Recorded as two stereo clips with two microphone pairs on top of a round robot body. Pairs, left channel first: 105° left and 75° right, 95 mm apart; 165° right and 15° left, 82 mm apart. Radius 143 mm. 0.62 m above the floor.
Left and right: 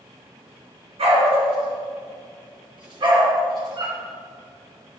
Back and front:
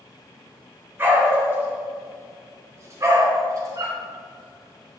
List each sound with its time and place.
1.0 s a dog barking: 50° right, 5 m; by 4.0 s 30° right, 4 m